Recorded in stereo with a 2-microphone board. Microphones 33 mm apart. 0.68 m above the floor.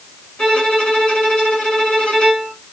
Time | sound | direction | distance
0.4 | a violin | 30° left (ahead or behind) | 1.6 m